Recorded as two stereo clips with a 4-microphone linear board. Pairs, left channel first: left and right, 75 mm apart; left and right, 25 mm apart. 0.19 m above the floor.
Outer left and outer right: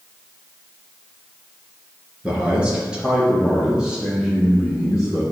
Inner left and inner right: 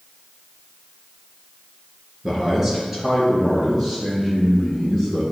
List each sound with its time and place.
2.2 s a man speaking: 15° right (ahead or behind), 2.5 m; by 5.2 s 10° right (ahead or behind), 6.5 m